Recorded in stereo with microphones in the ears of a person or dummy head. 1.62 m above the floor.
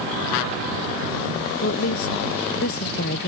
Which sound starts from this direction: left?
A woman speaking, at 1.6 s.